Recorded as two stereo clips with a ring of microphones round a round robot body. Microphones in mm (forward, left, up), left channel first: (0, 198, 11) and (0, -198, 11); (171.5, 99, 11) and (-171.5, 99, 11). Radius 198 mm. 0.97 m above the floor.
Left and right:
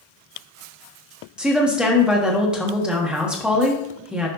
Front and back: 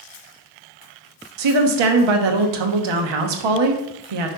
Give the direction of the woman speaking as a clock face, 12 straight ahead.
6 o'clock.